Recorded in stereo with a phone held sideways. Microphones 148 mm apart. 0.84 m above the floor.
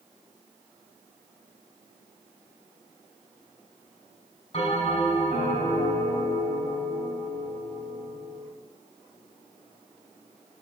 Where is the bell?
45° left (ahead or behind), 5 m.